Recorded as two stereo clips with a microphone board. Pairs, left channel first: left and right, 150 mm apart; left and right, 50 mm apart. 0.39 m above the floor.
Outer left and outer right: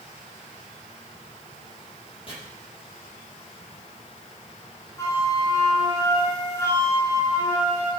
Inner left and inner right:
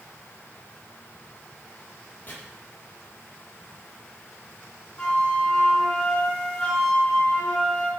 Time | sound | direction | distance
2.3 | chopping | 40° left (ahead or behind) | 8 m
5.0 | a flute | 20° left (ahead or behind) | 5.5 m